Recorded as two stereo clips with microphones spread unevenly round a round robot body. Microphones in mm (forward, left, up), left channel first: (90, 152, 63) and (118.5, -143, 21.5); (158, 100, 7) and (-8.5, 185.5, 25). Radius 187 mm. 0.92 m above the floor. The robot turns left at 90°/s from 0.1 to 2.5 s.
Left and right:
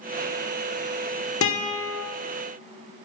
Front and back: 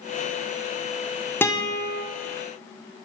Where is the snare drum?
No snare drum in this recording.